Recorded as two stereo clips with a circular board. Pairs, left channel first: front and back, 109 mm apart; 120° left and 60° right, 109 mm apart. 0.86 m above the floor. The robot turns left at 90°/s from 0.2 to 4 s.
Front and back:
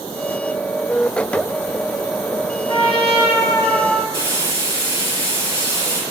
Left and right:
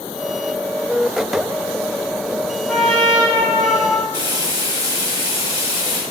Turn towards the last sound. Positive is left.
turn(degrees=-115)